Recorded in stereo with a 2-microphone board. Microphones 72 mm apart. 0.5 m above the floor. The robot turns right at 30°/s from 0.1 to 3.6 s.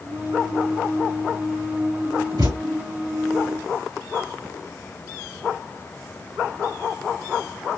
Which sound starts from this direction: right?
A thud, at 2.4 s.